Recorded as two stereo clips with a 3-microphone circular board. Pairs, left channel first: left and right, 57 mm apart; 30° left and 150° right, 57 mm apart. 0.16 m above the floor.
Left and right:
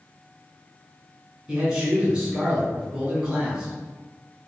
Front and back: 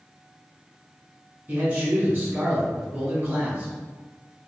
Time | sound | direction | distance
1.5 | a man speaking | 155° right | 1.1 m